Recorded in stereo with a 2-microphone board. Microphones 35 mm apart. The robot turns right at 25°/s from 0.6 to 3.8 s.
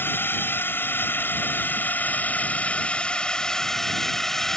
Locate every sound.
0.0 s a drone: 90° left; by 4.6 s 170° left